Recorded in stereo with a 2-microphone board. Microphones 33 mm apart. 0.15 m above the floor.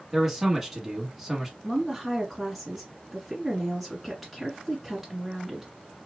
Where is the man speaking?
10° right (ahead or behind), 1.3 m.